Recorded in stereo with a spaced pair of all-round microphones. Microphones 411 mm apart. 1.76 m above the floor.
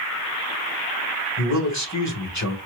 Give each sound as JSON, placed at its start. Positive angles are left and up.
{"t": 1.4, "sound": "a man speaking", "side_deg": 40, "distance_m": 1.8}